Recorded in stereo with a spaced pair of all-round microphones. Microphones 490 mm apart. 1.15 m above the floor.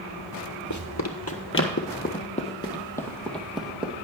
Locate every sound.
0.7 s running footsteps: 40° left (ahead or behind), 1.4 m; by 4.0 s 5° right (ahead or behind), 2.5 m